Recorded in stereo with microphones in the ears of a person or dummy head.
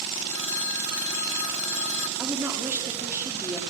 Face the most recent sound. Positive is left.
turn(degrees=-5)  # may be behind; listen again after turning